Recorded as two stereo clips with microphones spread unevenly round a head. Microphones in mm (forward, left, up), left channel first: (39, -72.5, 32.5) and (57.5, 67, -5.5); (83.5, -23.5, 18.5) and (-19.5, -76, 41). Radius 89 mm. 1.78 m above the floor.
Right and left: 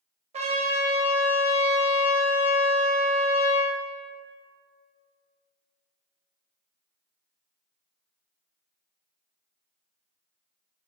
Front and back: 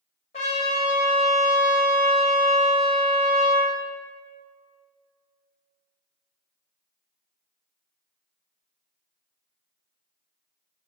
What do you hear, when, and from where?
0.3 s a trumpet: 50° left, 1.8 m